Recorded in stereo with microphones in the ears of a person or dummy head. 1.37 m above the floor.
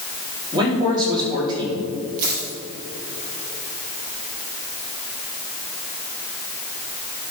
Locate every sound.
0.5 s a man speaking: 30° right (ahead or behind), 3.5 m
2.2 s a dropped coin: 55° right (ahead or behind), 3.5 m